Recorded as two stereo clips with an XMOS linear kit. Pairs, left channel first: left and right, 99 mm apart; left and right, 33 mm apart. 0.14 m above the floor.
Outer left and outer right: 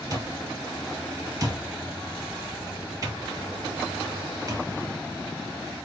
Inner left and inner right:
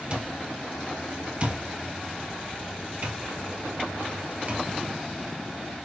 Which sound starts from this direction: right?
An alarm clock, at 0.1 s.